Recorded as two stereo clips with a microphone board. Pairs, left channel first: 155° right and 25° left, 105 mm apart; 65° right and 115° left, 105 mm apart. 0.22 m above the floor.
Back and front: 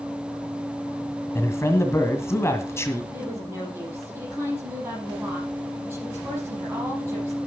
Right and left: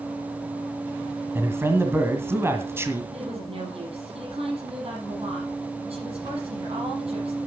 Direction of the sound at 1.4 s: 160° left.